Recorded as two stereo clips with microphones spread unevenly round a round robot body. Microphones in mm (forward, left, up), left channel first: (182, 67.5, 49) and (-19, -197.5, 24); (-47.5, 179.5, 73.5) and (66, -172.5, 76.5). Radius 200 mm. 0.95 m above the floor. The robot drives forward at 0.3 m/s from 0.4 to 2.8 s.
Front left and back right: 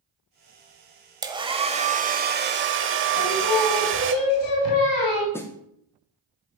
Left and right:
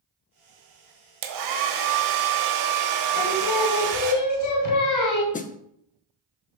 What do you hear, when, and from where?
1.2 s a hair dryer: 50° right, 1.0 m; by 4.1 s 85° right, 0.9 m
3.1 s singing: 75° left, 1.7 m
5.3 s a snare drum: 135° left, 0.6 m